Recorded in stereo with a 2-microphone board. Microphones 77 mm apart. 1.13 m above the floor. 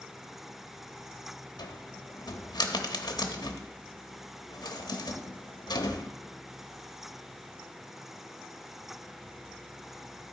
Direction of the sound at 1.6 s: 60° left (ahead or behind).